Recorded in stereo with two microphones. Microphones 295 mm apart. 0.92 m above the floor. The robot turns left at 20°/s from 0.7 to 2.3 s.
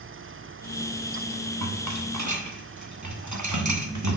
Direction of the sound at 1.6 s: 65° right (ahead or behind).